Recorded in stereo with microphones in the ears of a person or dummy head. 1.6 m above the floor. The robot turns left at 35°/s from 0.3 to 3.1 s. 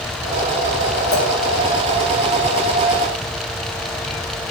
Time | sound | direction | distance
1.1 | a clink | 30° left (ahead or behind) | 1.4 m